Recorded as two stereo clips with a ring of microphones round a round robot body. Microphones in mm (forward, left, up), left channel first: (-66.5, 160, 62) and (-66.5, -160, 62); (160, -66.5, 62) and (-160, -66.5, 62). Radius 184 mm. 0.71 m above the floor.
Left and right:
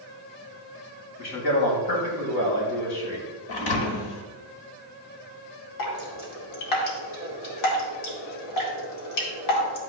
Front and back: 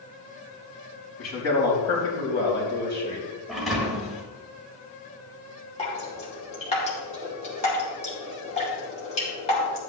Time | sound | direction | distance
1.2 | a man speaking | 45° left | 4 m
3.5 | a thud | 90° left | 1.6 m
5.8 | dripping | 70° left | 2.5 m